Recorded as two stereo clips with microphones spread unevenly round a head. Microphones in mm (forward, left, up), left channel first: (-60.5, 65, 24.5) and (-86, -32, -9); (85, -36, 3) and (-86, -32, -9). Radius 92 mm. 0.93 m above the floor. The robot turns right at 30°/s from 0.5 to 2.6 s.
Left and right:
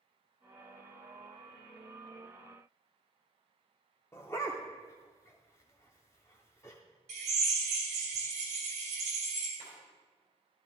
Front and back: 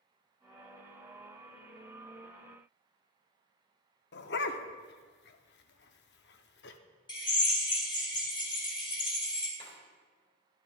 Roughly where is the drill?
Ahead right.